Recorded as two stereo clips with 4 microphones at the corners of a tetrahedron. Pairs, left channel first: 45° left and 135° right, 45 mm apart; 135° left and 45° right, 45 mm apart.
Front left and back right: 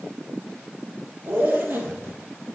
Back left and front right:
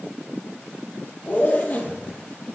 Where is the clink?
I don't hear a clink.